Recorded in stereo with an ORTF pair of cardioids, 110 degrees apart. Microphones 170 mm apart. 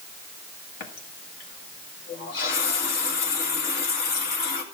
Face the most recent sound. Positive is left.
turn(degrees=70)